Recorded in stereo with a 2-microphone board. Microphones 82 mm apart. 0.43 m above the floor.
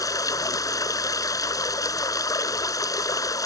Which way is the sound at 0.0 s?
45° left (ahead or behind).